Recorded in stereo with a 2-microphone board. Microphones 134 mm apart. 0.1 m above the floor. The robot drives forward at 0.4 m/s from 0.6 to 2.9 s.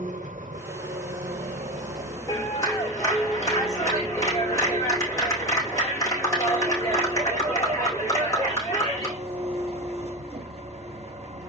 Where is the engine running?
75° right (ahead or behind), 1.8 m; by 11.5 s 50° right (ahead or behind), 2 m.